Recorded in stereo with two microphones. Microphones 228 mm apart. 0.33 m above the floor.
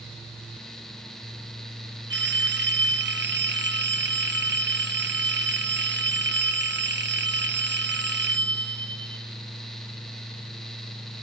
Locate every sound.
2.1 s a phone ringing: 55° right (ahead or behind), 1.0 m